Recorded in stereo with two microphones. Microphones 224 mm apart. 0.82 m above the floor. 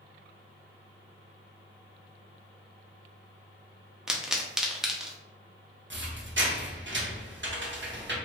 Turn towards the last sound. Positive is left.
turn(degrees=-55)  # may be behind; listen again after turning